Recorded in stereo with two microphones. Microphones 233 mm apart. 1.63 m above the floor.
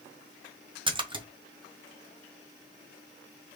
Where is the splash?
20° right (ahead or behind), 0.9 m.